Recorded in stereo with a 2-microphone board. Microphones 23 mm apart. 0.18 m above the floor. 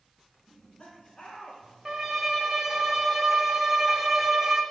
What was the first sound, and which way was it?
Laughter, 25° left (ahead or behind).